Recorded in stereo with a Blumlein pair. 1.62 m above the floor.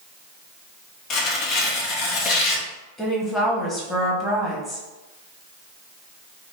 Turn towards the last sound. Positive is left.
turn(degrees=15)